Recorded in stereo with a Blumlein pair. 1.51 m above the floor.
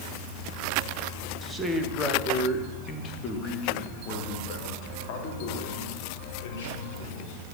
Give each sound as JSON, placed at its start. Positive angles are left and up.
{"t": 1.4, "sound": "a man speaking", "azimuth_deg": -10, "distance_m": 1.8}